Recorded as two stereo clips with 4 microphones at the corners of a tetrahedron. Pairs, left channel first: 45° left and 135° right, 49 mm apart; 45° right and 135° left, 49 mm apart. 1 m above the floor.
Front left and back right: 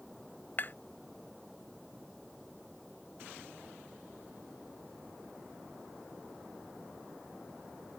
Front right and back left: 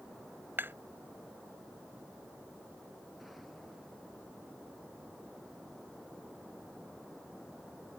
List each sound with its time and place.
0.6 s tapping: 95° left